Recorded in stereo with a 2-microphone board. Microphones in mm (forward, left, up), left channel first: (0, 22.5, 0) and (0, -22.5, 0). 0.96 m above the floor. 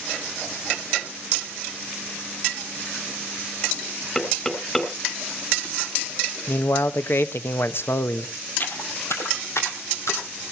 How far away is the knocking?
About 3 m.